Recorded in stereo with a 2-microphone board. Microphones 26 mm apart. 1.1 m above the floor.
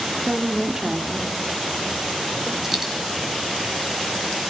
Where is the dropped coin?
10° right (ahead or behind), 4 m.